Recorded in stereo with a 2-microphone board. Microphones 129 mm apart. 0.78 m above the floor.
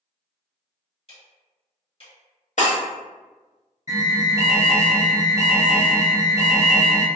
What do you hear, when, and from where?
1.1 s ticking: 45° left (ahead or behind), 1.4 m
2.6 s breaking glass: 65° left (ahead or behind), 0.9 m
3.9 s an alarm: 25° right (ahead or behind), 0.8 m